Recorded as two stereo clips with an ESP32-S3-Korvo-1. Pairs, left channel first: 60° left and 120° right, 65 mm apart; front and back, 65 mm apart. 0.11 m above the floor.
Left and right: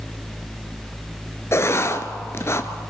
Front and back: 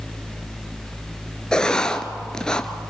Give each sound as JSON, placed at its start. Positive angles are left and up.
{"t": 1.5, "sound": "writing", "azimuth_deg": 75, "distance_m": 1.0}